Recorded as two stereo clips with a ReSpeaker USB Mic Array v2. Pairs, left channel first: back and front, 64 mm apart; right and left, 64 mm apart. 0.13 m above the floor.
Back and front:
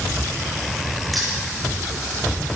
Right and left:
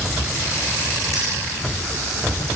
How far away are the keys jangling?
About 7.5 m.